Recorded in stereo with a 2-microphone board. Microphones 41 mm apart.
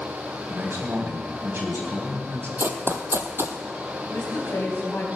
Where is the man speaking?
75° right (ahead or behind), 3.5 m.